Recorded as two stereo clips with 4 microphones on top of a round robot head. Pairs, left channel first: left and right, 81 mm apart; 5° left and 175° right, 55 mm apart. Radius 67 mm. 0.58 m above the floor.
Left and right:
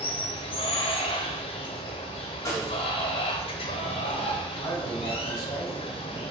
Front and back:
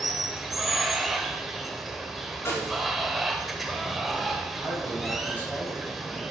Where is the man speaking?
60° left, 3.5 m.